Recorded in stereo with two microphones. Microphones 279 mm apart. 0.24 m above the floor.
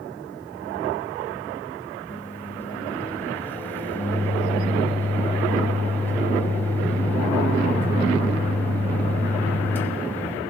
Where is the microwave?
10° left (ahead or behind), 1.0 m.